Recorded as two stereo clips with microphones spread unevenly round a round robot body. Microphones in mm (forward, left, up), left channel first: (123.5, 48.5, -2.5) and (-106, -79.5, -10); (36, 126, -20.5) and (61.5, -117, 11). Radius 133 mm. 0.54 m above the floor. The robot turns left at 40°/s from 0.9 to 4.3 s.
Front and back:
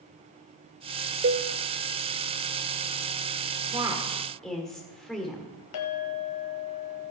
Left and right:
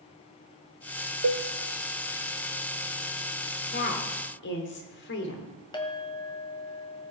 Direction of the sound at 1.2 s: 100° right.